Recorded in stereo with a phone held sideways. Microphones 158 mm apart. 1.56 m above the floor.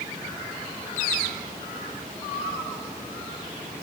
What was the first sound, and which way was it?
Only background noise.